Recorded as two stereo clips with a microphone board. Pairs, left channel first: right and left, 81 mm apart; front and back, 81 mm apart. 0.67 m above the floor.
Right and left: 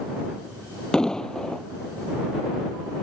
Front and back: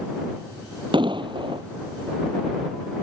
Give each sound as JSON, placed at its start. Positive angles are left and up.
{"t": 0.9, "sound": "an explosion", "azimuth_deg": -170}